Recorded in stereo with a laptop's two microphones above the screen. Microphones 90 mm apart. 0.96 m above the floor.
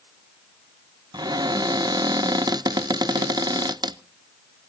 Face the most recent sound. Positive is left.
turn(degrees=-50)  # may be behind; listen again after turning